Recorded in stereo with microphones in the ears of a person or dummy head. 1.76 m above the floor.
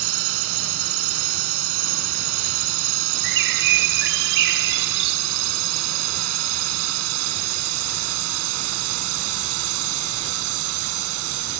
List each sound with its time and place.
0.0 s a drone: 80° right; by 11.6 s 75° right (ahead or behind)
3.2 s a bird: 65° right (ahead or behind)